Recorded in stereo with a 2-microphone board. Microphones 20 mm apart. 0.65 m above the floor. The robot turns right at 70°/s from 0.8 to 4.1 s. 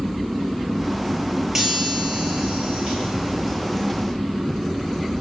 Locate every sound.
1.6 s a chime: 145° right, 10 m; by 4.1 s 30° left, 10 m